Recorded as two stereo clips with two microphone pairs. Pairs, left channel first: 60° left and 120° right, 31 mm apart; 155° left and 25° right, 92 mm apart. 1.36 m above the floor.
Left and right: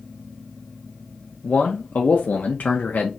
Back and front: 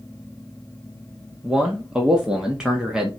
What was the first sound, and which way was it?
A man speaking, 55° left.